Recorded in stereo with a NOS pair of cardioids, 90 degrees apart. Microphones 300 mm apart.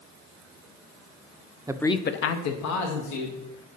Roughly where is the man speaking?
Ahead.